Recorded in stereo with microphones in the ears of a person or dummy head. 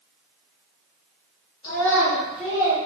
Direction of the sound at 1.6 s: 25° left (ahead or behind).